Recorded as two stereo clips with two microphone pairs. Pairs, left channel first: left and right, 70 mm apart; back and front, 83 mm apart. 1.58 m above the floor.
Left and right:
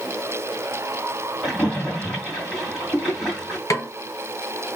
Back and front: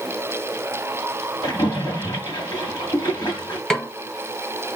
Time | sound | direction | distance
1.4 | a splash | straight behind | 2 m
3.7 | a snare drum | 95° left | 0.9 m